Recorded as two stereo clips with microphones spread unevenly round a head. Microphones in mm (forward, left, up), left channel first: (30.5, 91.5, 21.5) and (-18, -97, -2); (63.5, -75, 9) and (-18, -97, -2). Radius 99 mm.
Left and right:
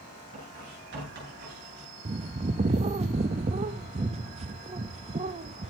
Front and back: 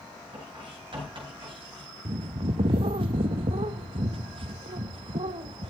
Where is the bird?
165° right, 0.5 m.